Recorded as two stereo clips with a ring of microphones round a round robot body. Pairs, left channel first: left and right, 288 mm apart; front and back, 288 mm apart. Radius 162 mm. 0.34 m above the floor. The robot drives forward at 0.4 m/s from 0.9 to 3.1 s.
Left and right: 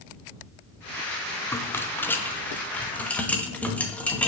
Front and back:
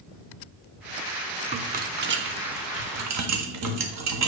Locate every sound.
1.5 s a rattle: 160° left, 0.6 m; by 4.3 s 175° left, 1.0 m